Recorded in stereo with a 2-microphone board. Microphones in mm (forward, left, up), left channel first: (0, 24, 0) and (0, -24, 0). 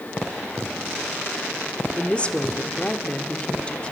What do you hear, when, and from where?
2.0 s a woman speaking: 25° left (ahead or behind), 1.1 m